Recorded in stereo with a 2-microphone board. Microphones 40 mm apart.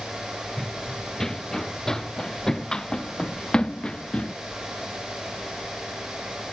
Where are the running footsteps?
5° left (ahead or behind); by 4.3 s 20° left (ahead or behind).